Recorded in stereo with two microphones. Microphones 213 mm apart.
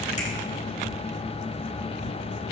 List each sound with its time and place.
0.2 s a finger snap: 35° left (ahead or behind), 8.5 m